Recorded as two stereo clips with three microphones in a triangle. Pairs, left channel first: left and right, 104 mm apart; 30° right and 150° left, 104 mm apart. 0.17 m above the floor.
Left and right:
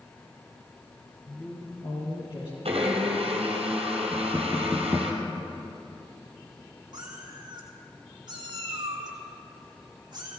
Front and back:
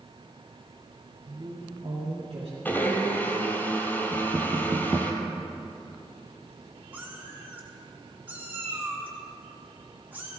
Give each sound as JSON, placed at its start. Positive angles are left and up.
{"t": 1.2, "sound": "a man speaking", "azimuth_deg": 140, "distance_m": 3.5}
{"t": 2.6, "sound": "a blender", "azimuth_deg": -105, "distance_m": 2.5}
{"t": 4.1, "sound": "knocking", "azimuth_deg": -165, "distance_m": 1.0}
{"t": 6.9, "sound": "a cat meowing", "azimuth_deg": -135, "distance_m": 2.5}